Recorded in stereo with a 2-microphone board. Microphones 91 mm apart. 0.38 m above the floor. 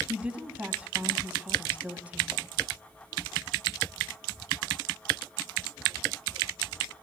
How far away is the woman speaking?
About 3 m.